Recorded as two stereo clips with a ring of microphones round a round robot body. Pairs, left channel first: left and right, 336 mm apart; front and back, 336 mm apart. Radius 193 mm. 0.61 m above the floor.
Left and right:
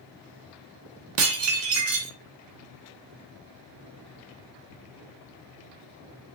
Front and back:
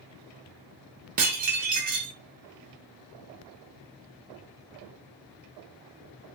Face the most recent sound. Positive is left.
turn(degrees=-120)